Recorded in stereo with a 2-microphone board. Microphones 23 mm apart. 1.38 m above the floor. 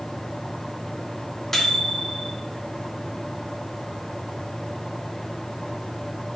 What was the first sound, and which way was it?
A microwave, 15° left (ahead or behind).